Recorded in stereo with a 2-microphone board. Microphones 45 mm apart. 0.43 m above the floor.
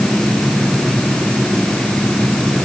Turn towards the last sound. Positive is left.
No sound to turn to.